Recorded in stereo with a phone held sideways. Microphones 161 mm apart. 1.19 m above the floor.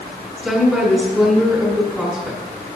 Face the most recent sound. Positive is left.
turn(degrees=-5)  # may be behind; listen again after turning